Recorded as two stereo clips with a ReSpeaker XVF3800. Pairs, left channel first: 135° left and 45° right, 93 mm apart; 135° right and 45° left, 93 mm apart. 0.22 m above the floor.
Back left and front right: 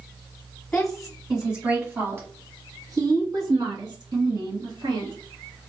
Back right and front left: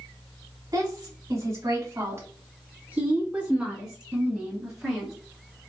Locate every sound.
0.7 s a woman speaking: 55° left, 1.4 m; by 5.1 s 45° right, 3 m